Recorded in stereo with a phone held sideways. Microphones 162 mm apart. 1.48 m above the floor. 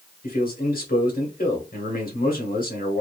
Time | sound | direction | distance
0.2 | a man speaking | 65° left (ahead or behind) | 1.2 m